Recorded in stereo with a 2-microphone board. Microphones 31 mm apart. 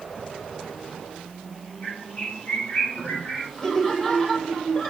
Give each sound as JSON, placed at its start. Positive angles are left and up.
{"t": 1.8, "sound": "a bird", "side_deg": 40, "distance_m": 4.0}
{"t": 3.6, "sound": "laughter", "side_deg": 20, "distance_m": 5.5}